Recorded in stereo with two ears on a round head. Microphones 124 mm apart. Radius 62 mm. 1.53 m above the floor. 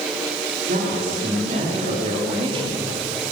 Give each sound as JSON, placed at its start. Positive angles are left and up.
{"t": 0.7, "sound": "a man speaking", "side_deg": -60, "distance_m": 4.0}